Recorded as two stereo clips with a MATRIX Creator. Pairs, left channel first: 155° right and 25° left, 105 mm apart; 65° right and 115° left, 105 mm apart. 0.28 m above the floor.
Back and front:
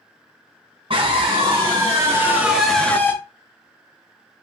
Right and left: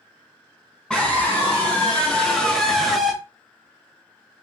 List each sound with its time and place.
0.9 s a scream: 15° left, 1.8 m; by 3.2 s 155° right, 1.1 m